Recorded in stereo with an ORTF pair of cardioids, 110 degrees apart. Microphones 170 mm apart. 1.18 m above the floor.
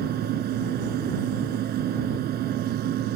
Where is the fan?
65° right.